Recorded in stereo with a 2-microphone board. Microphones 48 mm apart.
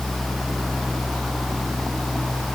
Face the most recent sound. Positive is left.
No sound to turn to.